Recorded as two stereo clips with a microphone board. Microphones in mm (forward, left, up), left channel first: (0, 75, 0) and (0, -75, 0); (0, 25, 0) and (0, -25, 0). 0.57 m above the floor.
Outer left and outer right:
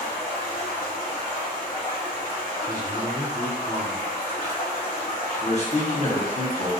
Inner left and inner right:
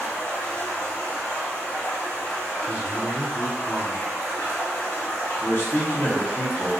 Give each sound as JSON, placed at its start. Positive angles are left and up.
{"t": 0.0, "sound": "running water", "side_deg": 70, "distance_m": 1.3}
{"t": 2.7, "sound": "a man speaking", "side_deg": -25, "distance_m": 1.4}
{"t": 5.4, "sound": "a man speaking", "side_deg": 45, "distance_m": 1.0}